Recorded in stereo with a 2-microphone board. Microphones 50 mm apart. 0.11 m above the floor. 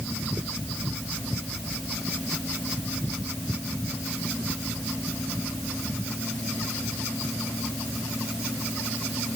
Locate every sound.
Only background noise.